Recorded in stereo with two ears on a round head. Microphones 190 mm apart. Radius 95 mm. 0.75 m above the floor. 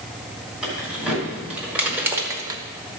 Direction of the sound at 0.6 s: 5° right (ahead or behind).